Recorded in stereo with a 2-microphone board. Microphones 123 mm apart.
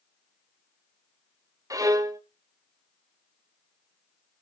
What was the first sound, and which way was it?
A violin, 30° right (ahead or behind).